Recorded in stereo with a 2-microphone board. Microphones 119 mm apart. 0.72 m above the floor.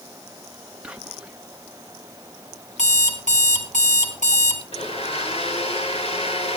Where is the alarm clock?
85° left, 3.5 m.